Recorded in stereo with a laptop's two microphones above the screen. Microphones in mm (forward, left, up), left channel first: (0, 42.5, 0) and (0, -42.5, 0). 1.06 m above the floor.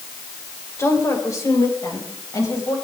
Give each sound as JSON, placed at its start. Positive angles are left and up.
{"t": 0.8, "sound": "a woman speaking", "side_deg": 35, "distance_m": 4.5}